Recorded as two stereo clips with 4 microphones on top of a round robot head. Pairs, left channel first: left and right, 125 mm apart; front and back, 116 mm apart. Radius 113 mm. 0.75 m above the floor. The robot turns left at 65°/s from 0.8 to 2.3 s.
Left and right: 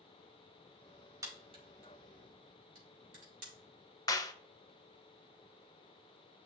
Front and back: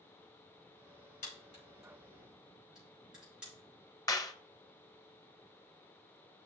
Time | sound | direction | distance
1.2 | a crack | 25° right | 3.5 m
4.1 | a clap | 45° left | 1.0 m